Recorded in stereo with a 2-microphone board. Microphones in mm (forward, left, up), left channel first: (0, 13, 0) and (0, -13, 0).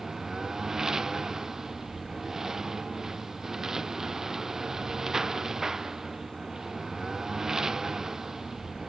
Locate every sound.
0.0 s a lawn mower: 25° right (ahead or behind)